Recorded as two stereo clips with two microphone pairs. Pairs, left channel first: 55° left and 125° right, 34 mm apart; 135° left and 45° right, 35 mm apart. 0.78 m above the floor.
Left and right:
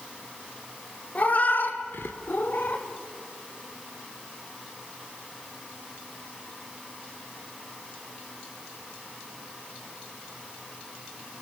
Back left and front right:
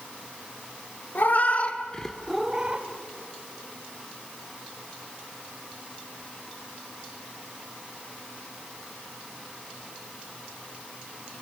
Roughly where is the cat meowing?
Left.